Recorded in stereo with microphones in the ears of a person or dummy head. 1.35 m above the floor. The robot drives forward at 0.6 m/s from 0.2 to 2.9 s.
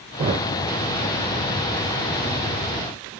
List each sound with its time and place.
0.2 s a thud: 25° right (ahead or behind), 1.3 m